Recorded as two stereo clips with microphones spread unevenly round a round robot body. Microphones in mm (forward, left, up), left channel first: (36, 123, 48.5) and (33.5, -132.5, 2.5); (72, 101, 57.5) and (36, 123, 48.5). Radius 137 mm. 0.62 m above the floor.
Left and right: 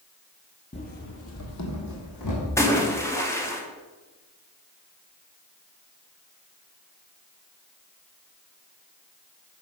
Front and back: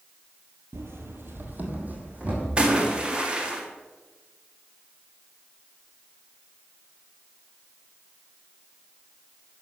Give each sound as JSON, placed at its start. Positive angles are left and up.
{"t": 0.7, "sound": "running footsteps", "azimuth_deg": 150, "distance_m": 1.1}
{"t": 2.6, "sound": "a splash", "azimuth_deg": 175, "distance_m": 1.5}